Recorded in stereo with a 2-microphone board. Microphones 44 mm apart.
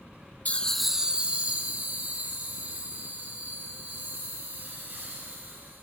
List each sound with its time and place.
0.5 s laughter: 35° left (ahead or behind), 0.7 m; by 5.8 s 55° right (ahead or behind), 8 m